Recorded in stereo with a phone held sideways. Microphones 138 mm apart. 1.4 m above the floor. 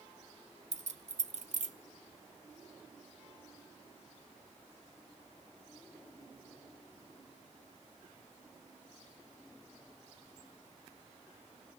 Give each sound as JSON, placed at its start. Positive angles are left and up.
{"t": 0.7, "sound": "keys jangling", "side_deg": -65, "distance_m": 0.6}